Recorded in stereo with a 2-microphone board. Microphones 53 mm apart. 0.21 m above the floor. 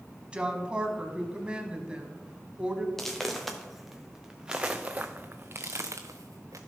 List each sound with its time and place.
0.3 s a woman speaking: 20° right (ahead or behind), 1.2 m
3.0 s footsteps: 5° left (ahead or behind), 1.9 m; by 6.6 s 80° right, 1.1 m